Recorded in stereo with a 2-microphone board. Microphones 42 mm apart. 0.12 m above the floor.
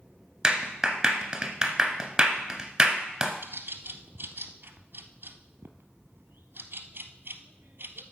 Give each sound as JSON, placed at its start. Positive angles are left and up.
{"t": 0.4, "sound": "a clap", "side_deg": -15, "distance_m": 1.2}
{"t": 3.4, "sound": "a bird", "side_deg": -55, "distance_m": 0.8}